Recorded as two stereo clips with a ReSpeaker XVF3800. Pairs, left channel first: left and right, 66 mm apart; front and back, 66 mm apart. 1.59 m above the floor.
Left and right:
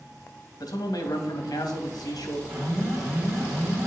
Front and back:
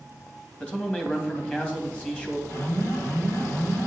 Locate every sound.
0.6 s a man speaking: 70° left, 2.5 m
2.5 s an alarm: 35° right, 4.5 m